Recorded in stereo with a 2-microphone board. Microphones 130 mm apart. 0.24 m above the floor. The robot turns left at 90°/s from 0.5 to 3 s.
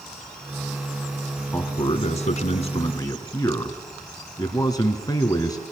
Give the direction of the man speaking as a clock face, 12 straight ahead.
6 o'clock.